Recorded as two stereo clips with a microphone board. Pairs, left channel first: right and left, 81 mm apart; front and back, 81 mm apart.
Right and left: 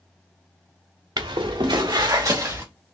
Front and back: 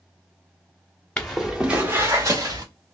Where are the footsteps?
75° left, 1.0 m; by 2.6 s 145° left, 1.7 m.